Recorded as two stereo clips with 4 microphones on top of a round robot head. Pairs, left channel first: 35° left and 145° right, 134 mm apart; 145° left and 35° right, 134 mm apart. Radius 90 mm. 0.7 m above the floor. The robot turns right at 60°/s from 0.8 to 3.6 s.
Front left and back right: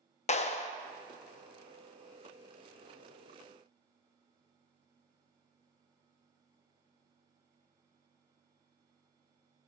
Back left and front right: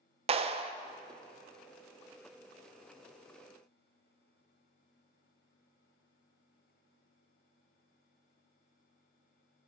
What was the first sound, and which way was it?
A clap, 5° left.